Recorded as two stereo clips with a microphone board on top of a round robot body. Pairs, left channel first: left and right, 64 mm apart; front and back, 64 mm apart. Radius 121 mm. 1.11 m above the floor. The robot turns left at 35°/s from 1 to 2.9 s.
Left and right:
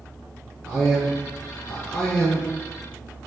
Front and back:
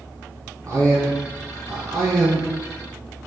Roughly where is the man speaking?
Behind.